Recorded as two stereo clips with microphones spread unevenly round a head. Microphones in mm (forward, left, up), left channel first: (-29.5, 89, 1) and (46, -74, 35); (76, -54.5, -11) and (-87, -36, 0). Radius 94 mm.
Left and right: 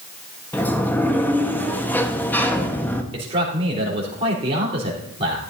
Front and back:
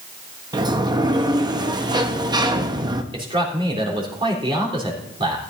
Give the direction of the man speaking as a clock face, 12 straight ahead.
4 o'clock.